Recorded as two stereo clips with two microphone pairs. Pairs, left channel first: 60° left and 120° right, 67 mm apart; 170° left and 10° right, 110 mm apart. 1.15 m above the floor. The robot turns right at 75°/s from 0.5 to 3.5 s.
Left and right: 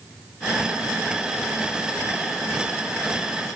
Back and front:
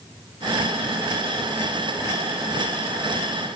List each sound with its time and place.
Only background noise.